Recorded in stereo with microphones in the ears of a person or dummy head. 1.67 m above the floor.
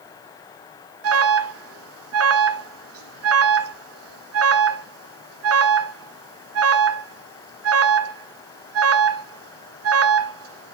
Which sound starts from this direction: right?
An alarm, at 1.0 s.